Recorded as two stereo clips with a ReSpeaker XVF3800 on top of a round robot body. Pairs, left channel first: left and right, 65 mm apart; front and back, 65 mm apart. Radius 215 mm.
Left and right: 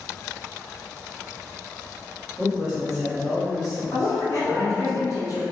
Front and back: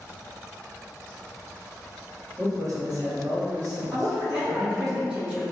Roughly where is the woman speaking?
Behind left.